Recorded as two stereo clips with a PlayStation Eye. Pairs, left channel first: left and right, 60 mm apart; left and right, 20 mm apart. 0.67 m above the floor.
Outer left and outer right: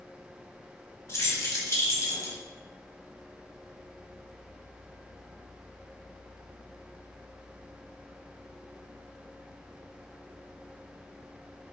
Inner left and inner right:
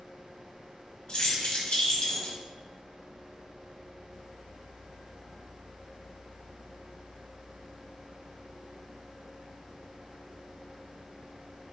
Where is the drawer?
No drawer in this recording.